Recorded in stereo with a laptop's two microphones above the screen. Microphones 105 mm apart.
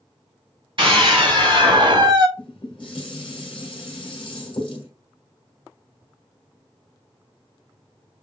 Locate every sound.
0.8 s a scream: 50° right (ahead or behind), 3 m; by 2.3 s 40° right (ahead or behind), 1.2 m
2.4 s dishes clattering: 50° left (ahead or behind), 2 m